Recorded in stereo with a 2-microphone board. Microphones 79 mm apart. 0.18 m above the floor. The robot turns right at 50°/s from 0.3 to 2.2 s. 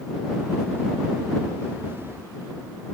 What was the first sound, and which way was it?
Only background noise.